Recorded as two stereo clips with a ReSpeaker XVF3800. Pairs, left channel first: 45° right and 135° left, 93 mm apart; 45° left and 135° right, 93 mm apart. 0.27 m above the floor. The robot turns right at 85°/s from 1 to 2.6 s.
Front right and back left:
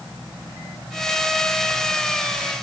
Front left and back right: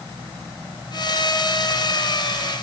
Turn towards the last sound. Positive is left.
No sound to turn to.